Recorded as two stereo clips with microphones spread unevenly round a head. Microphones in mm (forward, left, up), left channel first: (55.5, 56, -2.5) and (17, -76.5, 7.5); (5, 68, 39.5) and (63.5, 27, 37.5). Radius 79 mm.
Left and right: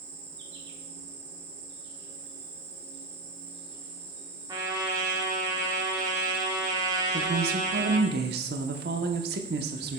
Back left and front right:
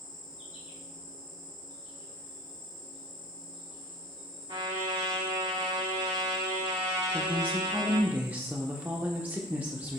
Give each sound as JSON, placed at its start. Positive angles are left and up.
{"t": 0.0, "sound": "an insect", "azimuth_deg": -115, "distance_m": 1.5}
{"t": 4.5, "sound": "a trumpet", "azimuth_deg": -45, "distance_m": 1.9}
{"t": 7.1, "sound": "a woman speaking", "azimuth_deg": -105, "distance_m": 0.9}